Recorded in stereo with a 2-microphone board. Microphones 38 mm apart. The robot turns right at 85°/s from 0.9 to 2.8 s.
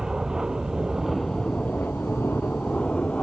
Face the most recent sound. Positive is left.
turn(degrees=145)